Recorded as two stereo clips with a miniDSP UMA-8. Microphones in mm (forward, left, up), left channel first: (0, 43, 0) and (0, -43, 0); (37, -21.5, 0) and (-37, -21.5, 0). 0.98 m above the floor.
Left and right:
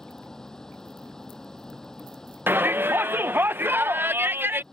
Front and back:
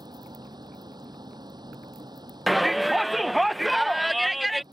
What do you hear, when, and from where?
0.0 s a vehicle: 175° left
2.5 s a shout: 95° right